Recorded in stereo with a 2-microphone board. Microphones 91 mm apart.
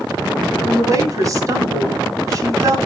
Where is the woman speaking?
40° right (ahead or behind), 2.5 m.